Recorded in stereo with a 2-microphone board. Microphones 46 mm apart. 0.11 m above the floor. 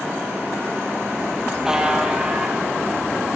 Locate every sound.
1.6 s a buzzer: 10° right (ahead or behind), 3.5 m